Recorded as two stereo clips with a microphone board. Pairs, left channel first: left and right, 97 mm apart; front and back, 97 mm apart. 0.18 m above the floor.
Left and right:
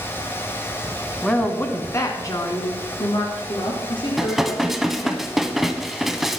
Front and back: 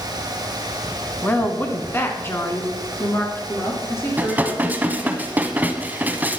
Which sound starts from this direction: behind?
Dishes clattering, at 4.2 s.